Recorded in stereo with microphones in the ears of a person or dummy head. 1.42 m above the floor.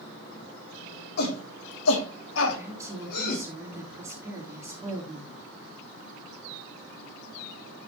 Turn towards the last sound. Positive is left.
turn(degrees=-15)  # may be behind; listen again after turning